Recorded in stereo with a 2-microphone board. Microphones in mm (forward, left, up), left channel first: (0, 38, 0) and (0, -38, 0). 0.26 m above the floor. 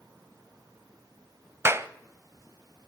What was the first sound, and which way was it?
A clap, 35° right (ahead or behind).